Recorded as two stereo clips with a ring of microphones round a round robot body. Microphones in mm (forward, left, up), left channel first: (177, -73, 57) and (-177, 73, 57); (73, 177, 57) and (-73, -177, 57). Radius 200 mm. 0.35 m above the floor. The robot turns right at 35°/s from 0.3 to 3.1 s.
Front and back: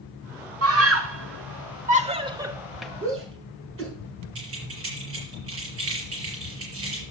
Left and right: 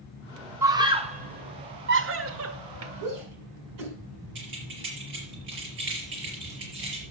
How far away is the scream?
About 1.2 m.